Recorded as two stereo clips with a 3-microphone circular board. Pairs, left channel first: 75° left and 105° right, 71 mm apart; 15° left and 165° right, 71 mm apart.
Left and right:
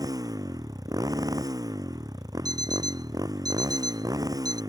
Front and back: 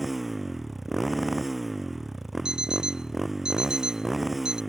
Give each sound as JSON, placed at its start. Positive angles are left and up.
{"t": 0.0, "sound": "a motorcycle", "azimuth_deg": -75}
{"t": 2.5, "sound": "an alarm clock", "azimuth_deg": -85}